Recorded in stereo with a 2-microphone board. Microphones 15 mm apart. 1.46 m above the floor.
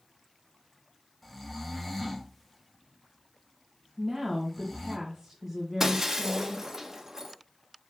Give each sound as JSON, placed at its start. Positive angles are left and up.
{"t": 1.2, "sound": "snoring", "side_deg": 5, "distance_m": 1.5}
{"t": 4.0, "sound": "a woman speaking", "side_deg": -15, "distance_m": 1.9}
{"t": 5.8, "sound": "breaking glass", "side_deg": -35, "distance_m": 1.2}